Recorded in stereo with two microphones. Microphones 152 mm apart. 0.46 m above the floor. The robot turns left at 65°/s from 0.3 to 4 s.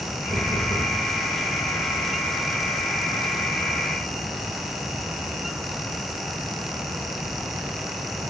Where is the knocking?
Straight ahead, 6 m; by 1.0 s 45° right, 6 m.